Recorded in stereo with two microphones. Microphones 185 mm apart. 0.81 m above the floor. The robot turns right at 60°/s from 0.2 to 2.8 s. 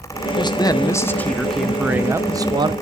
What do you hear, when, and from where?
0.4 s a man speaking: 25° left (ahead or behind), 0.5 m; by 2.7 s 25° right (ahead or behind), 0.5 m